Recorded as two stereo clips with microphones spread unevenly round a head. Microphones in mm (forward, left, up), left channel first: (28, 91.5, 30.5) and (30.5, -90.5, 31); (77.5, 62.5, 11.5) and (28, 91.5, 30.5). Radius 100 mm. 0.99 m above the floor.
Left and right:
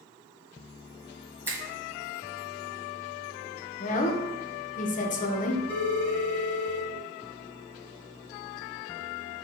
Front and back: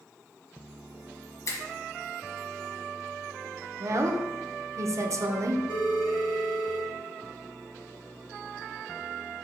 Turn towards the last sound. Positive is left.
turn(degrees=-55)